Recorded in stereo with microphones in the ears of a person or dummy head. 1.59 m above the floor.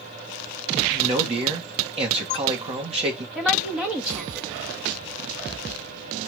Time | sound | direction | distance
0.9 | a man speaking | 30° right (ahead or behind) | 2 m
3.4 | a woman speaking | centre (ahead or behind) | 2 m